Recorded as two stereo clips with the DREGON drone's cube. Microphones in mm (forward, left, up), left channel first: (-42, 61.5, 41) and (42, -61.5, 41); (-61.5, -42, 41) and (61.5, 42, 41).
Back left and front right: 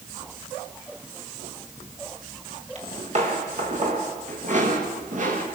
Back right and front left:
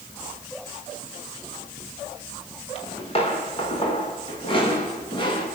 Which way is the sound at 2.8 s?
95° right.